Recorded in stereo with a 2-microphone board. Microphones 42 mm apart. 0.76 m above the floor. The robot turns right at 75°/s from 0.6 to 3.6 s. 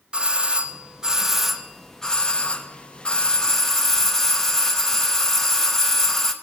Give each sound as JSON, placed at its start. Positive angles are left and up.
{"t": 0.1, "sound": "a doorbell", "side_deg": -25, "distance_m": 0.9}